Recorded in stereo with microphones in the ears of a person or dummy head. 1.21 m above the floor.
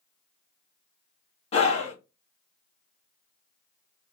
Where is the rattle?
No rattle in this recording.